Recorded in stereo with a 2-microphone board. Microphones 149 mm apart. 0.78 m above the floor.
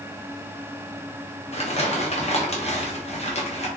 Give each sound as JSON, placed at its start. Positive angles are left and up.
{"t": 1.5, "sound": "crumpling", "side_deg": 45, "distance_m": 0.8}